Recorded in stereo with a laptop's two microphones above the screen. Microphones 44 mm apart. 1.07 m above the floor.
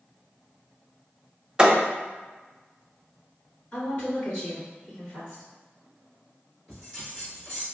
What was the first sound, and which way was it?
A thud, 20° right (ahead or behind).